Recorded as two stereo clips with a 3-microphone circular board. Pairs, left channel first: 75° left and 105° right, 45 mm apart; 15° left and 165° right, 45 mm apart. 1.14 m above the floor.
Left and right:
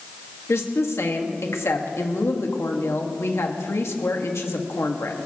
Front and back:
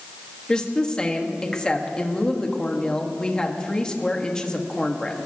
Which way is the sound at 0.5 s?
85° left.